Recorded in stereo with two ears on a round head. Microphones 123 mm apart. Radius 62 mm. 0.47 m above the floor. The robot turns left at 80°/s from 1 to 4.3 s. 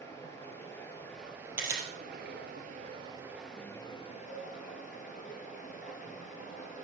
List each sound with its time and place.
0.0 s running water: 20° left, 2.0 m; by 6.8 s 115° left, 2.0 m
1.6 s a camera shutter: 10° right (ahead or behind), 2.5 m; by 1.9 s 35° right (ahead or behind), 2.5 m
4.3 s a cowbell: 65° left (ahead or behind), 3 m